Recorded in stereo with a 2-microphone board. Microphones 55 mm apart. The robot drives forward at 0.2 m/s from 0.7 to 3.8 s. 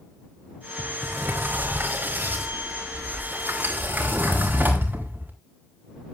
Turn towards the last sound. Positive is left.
turn(degrees=-35)  # may be behind; listen again after turning